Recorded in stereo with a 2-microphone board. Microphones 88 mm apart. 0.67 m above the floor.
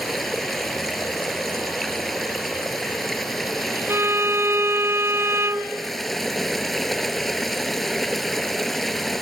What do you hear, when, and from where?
0.0 s running water: centre (ahead or behind)
3.9 s a violin: 30° right (ahead or behind)